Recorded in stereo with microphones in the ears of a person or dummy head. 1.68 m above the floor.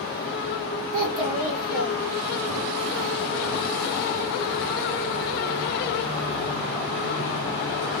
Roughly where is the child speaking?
Right.